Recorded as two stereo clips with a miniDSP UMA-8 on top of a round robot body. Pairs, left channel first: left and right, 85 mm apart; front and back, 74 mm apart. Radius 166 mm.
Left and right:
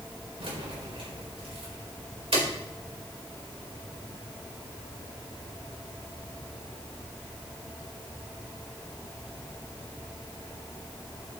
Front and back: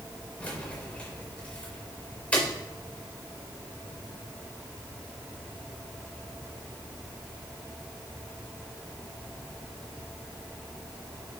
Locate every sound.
0.4 s keys jangling: 75° right, 4 m